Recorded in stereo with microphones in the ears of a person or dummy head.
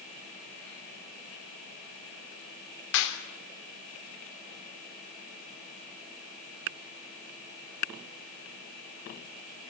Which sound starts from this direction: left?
A clap, at 2.9 s.